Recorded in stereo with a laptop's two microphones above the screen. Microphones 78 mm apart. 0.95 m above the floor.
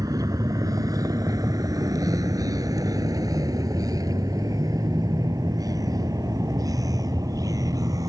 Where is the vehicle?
50° right (ahead or behind).